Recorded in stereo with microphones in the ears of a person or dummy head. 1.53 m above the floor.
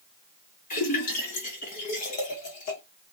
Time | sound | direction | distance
0.7 | a splash | 35° left (ahead or behind) | 1.0 m